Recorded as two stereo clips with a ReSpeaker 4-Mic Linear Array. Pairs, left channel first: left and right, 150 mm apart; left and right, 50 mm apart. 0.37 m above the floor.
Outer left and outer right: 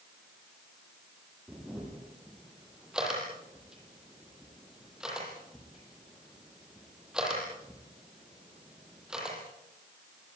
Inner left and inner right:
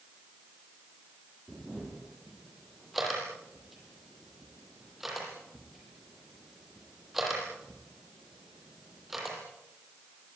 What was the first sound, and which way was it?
A camera shutter, 5° right (ahead or behind).